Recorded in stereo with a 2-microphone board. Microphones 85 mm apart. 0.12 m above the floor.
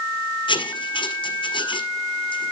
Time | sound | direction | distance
0.5 | writing | 70° left (ahead or behind) | 1.4 m